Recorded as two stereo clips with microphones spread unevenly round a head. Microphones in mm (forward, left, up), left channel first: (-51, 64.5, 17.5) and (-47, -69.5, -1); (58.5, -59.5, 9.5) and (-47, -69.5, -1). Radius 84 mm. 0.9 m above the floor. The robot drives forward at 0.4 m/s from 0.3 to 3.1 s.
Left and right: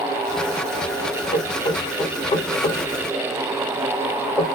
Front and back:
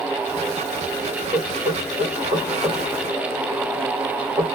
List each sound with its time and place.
1.3 s knocking: 140° left, 2.5 m; by 4.5 s 145° left, 3 m